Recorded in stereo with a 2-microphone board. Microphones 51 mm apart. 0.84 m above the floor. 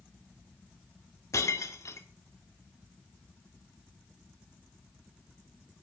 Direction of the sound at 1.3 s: 85° left.